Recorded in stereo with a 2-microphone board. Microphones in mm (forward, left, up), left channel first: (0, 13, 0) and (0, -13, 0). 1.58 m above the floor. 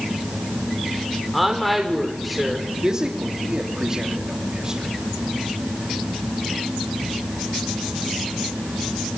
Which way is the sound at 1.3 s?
Centre (ahead or behind).